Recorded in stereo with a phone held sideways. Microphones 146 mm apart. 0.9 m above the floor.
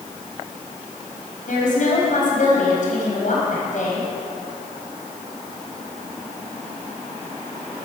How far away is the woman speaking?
About 5 m.